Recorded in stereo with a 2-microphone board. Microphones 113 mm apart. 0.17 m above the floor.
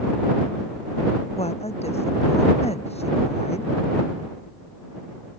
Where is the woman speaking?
70° left (ahead or behind).